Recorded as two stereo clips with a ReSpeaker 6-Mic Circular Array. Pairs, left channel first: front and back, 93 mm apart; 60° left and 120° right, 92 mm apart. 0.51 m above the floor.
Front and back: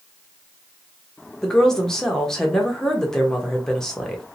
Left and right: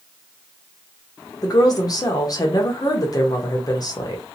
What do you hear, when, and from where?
1.4 s a woman speaking: 80° left, 1.1 m